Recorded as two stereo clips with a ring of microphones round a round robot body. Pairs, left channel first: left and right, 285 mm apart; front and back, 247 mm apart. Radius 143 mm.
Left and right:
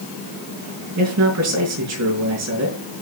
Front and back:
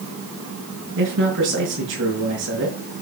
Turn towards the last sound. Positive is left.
turn(degrees=-125)